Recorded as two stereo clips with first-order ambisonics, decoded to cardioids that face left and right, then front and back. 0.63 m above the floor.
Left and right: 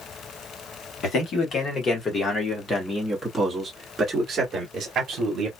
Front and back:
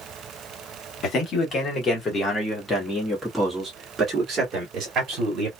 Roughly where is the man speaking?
Ahead left.